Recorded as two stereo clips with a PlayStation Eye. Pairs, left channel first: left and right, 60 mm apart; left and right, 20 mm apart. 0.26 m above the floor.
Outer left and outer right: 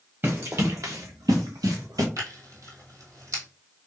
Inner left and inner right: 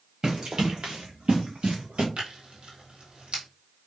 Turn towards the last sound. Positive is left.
turn(degrees=-65)  # may be behind; listen again after turning